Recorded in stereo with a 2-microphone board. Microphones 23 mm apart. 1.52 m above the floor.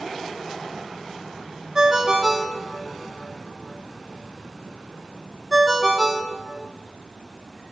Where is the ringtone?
35° right (ahead or behind), 0.7 m.